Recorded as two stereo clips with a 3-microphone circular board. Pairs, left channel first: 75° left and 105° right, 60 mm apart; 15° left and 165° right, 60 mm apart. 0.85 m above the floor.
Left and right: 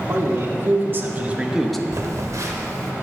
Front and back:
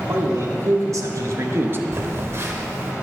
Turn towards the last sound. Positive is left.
turn(degrees=-125)